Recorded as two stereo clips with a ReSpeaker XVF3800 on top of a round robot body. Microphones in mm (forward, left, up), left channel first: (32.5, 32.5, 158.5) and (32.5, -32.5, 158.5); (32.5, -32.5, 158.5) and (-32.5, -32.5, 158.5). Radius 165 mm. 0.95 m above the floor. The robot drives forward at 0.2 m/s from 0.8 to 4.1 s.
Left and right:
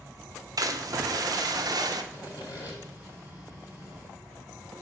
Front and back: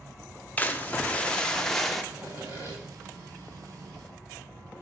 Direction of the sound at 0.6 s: 65° right.